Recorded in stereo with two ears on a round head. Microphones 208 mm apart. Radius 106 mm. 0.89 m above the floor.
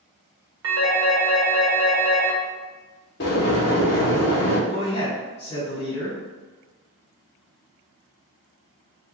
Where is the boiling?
45° left (ahead or behind), 0.8 m.